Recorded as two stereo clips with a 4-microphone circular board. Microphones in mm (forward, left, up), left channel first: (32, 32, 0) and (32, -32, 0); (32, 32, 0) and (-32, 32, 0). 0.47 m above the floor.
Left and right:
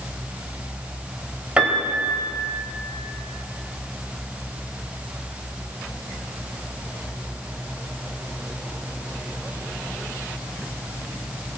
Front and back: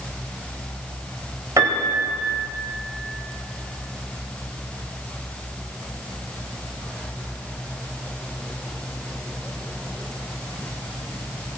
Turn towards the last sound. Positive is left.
turn(degrees=-155)